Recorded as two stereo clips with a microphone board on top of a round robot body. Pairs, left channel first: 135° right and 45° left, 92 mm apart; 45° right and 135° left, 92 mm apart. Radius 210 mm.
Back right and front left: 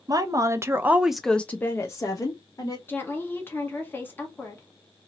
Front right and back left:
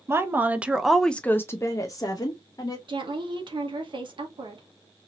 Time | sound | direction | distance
0.1 | a woman speaking | 80° left | 1.0 m
2.9 | a woman speaking | 160° left | 1.3 m